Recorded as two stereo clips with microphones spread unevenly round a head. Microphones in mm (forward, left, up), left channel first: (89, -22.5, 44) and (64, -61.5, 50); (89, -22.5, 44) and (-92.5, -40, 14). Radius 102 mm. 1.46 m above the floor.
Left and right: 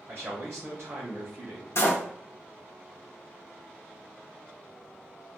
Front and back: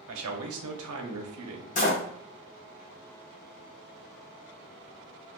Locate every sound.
0.1 s a man speaking: 165° left, 0.7 m
1.8 s a door slam: 40° left, 0.7 m